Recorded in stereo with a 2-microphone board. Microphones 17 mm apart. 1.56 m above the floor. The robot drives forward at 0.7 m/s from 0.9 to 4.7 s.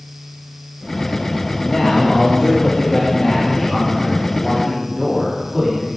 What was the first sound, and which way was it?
A man speaking, 50° left (ahead or behind).